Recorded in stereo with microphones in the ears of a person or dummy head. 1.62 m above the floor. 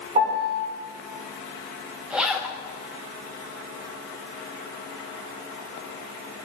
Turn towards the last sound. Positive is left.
turn(degrees=-5)  # may be behind; listen again after turning